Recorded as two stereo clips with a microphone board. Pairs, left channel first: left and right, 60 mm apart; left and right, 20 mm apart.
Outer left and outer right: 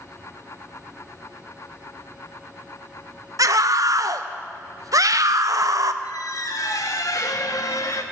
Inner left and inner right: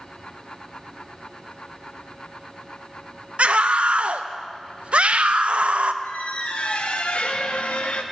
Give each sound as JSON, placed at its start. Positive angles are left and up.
{"t": 3.4, "sound": "a scream", "side_deg": -70, "distance_m": 0.8}
{"t": 6.0, "sound": "a squeak", "side_deg": 70, "distance_m": 1.1}